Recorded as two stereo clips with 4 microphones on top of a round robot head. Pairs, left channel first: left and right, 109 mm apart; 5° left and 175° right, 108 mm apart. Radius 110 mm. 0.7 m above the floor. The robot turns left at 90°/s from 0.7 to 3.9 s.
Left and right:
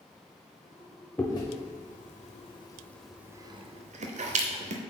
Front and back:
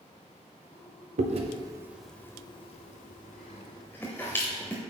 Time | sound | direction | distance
1.2 | chewing | 170° left | 0.8 m